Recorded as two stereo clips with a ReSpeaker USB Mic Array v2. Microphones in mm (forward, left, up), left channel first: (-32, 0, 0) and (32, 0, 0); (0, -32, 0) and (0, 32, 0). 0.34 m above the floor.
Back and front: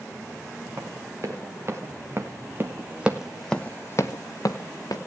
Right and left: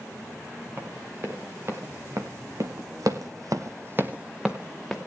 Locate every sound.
0.8 s running footsteps: 40° left, 3 m; by 5.0 s straight behind, 1.6 m